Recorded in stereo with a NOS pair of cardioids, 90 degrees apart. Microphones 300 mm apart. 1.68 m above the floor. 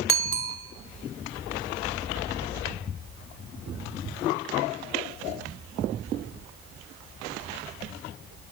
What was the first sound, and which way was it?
A bicycle bell, 45° right.